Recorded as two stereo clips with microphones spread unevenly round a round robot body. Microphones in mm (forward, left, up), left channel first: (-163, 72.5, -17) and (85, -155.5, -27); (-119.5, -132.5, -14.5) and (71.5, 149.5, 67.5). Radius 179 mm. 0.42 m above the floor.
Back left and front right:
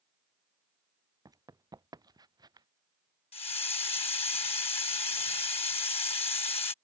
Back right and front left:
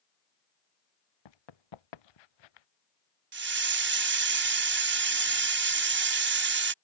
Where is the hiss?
90° left.